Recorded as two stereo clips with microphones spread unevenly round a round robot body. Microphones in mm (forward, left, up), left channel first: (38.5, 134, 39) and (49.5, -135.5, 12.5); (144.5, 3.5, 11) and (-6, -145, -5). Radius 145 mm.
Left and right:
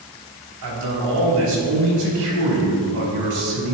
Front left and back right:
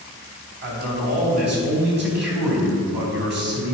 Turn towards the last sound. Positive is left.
turn(degrees=-105)